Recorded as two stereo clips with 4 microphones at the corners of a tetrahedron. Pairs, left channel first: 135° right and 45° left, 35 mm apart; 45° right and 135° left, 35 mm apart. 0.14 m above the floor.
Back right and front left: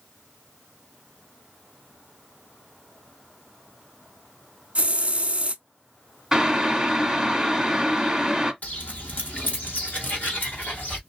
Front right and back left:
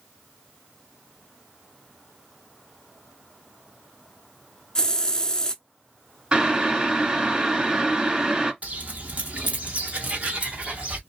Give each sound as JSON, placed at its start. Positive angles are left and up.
{"t": 4.8, "sound": "a hiss", "azimuth_deg": 15, "distance_m": 0.5}
{"t": 6.3, "sound": "boiling", "azimuth_deg": 115, "distance_m": 1.3}
{"t": 8.6, "sound": "footsteps", "azimuth_deg": 180, "distance_m": 1.5}